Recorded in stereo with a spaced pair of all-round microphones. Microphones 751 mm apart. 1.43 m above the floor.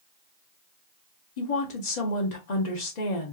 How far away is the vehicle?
I don't hear a vehicle.